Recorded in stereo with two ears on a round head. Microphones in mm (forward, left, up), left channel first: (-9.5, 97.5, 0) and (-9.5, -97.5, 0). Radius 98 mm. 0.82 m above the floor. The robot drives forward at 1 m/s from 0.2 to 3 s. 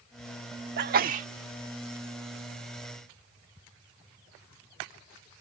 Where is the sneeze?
50° right (ahead or behind); by 1.3 s 35° right (ahead or behind).